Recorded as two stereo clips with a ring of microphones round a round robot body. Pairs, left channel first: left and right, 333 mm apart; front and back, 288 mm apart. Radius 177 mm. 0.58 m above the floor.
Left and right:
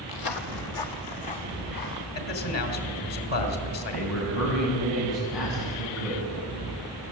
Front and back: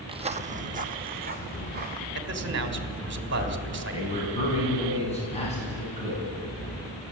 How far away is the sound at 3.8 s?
About 6 m.